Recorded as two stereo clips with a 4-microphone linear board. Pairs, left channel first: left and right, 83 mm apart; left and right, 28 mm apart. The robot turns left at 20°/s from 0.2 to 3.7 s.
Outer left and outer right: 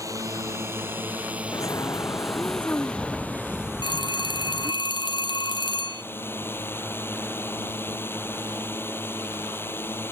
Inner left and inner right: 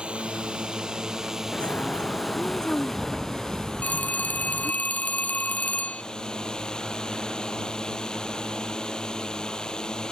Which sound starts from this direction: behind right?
A drone, at 0.0 s.